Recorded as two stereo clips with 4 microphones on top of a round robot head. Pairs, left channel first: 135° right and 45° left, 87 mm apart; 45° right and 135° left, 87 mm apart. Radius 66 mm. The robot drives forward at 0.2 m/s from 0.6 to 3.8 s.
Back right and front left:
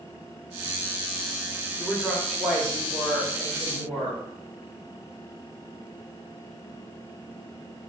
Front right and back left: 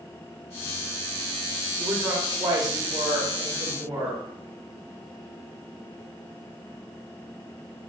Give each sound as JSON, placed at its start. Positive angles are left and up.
{"t": 1.8, "sound": "a woman speaking", "azimuth_deg": 140, "distance_m": 1.1}